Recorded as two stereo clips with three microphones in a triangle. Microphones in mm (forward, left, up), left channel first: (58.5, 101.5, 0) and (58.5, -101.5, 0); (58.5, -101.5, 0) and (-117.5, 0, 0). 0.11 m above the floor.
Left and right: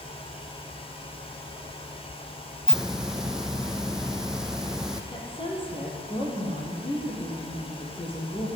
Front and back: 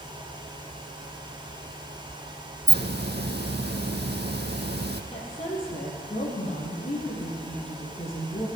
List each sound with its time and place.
2.7 s a hiss: 175° right, 1.0 m
5.1 s a woman speaking: 25° left, 4 m